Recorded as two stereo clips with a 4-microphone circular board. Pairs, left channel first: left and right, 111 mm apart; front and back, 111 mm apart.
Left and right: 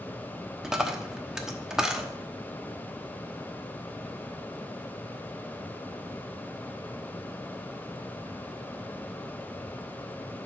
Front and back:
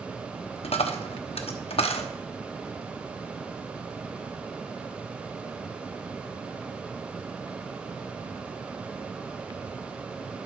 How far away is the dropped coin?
About 1.0 m.